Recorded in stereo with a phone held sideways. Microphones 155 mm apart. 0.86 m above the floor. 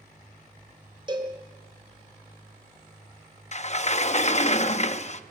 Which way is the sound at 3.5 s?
45° left (ahead or behind).